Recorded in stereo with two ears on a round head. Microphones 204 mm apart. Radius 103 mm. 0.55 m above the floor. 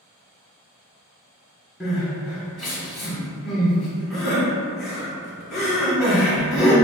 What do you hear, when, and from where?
1.8 s crying: centre (ahead or behind), 1.7 m